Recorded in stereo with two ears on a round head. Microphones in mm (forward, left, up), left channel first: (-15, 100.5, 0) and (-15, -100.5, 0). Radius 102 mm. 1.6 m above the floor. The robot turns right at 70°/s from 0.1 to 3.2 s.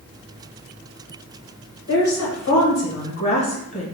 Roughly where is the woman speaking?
Ahead left.